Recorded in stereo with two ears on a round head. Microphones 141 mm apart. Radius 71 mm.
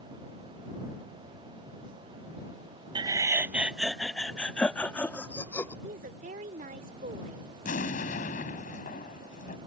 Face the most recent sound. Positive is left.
turn(degrees=55)  # may be behind; listen again after turning